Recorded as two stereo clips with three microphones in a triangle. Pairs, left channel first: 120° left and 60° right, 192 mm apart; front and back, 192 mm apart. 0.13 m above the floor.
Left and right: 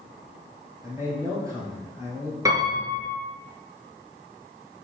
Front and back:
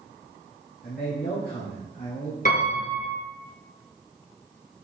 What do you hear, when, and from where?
0.8 s a man speaking: 10° left, 2.5 m
2.5 s a piano: 5° left, 2 m